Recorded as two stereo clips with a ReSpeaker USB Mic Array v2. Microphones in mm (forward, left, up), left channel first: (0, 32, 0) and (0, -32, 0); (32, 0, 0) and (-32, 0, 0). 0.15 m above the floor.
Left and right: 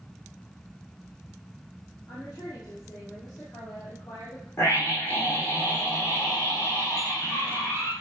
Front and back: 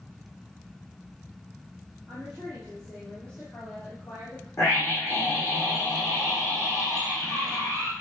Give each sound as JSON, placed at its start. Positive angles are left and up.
{"t": 2.1, "sound": "a woman speaking", "azimuth_deg": 90, "distance_m": 4.5}
{"t": 4.6, "sound": "a scream", "azimuth_deg": 55, "distance_m": 6.0}